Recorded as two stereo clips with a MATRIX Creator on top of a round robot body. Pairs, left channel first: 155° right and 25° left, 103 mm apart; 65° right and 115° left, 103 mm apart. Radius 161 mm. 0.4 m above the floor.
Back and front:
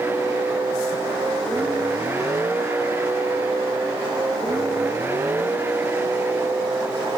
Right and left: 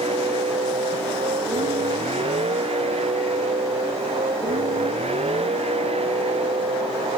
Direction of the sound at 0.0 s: 90° left.